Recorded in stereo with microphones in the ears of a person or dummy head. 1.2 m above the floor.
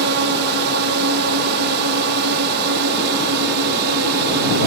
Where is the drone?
55° right (ahead or behind).